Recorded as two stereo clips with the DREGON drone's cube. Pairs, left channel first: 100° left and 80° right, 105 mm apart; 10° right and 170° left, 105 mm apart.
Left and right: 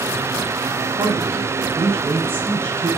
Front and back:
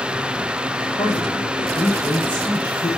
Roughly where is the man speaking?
Ahead right.